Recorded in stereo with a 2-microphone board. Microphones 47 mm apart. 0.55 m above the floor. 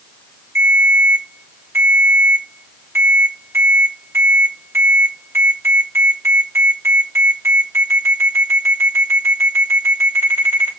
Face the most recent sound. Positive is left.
turn(degrees=-65)  # may be behind; listen again after turning